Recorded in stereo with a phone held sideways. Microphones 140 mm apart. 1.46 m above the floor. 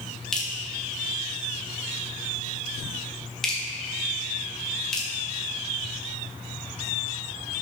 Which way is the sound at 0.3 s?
5° left (ahead or behind).